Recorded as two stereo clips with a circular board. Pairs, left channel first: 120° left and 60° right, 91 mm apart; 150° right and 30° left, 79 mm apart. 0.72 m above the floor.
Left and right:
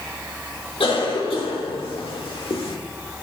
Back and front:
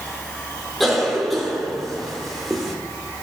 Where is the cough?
120° left, 1.7 m.